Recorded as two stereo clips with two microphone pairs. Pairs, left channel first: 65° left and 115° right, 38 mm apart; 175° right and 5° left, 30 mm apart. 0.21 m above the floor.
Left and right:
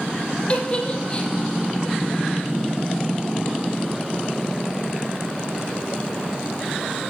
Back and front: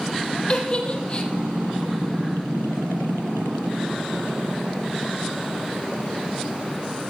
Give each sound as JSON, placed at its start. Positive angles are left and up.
{"t": 0.5, "sound": "a giggle", "azimuth_deg": 130, "distance_m": 3.0}